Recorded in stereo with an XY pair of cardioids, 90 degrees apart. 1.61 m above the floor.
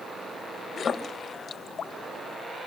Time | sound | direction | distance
0.8 | a splash | 55° left | 2.5 m